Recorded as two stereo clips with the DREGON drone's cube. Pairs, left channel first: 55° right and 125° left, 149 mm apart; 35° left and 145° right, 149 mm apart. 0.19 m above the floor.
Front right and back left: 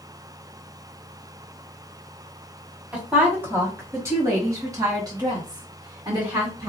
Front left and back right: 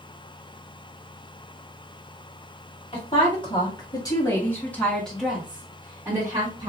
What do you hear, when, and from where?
2.9 s a woman speaking: 50° left, 1.7 m; by 6.7 s 170° left, 1.6 m